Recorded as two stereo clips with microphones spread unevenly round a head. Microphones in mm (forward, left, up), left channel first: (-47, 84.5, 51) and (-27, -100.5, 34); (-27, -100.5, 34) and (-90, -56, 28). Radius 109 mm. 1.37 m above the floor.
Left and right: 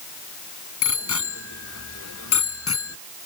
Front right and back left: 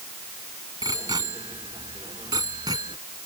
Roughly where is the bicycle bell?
Left.